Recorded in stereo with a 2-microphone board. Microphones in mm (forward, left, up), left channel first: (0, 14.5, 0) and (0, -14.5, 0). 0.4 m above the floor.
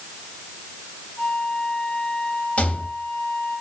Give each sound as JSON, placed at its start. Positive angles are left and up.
{"t": 1.2, "sound": "a flute", "side_deg": 80, "distance_m": 4.5}
{"t": 2.6, "sound": "a rattle", "side_deg": 60, "distance_m": 2.5}